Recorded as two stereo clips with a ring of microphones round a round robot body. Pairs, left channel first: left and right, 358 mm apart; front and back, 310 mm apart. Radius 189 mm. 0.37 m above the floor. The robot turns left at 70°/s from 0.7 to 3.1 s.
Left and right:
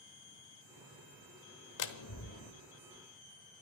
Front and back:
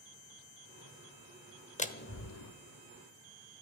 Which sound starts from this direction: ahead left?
A door slam, at 1.8 s.